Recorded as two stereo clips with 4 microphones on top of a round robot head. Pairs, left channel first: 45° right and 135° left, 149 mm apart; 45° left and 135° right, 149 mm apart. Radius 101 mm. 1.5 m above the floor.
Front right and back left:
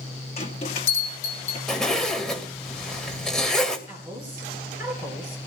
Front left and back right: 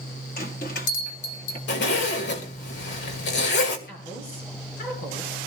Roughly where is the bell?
Ahead.